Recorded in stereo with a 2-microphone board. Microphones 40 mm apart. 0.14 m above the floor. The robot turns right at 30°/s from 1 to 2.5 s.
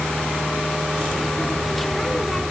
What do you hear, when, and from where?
Only background noise.